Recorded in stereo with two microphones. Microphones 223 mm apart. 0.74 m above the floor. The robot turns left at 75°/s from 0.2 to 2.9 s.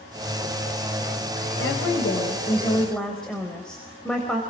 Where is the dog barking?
I don't hear a dog barking.